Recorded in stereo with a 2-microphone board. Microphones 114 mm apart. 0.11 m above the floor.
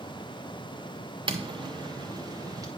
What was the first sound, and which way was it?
Footsteps, 50° right (ahead or behind).